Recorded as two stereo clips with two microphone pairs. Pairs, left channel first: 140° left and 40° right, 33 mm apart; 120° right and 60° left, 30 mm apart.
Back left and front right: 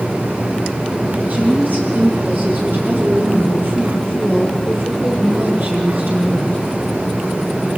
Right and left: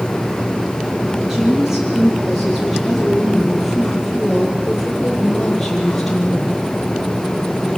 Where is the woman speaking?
15° right, 7 m; by 6.6 s 40° right, 6.5 m.